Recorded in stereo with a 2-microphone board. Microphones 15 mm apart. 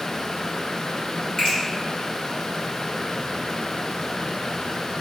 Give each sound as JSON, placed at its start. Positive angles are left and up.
{"t": 1.4, "sound": "a finger snap", "side_deg": 45, "distance_m": 1.7}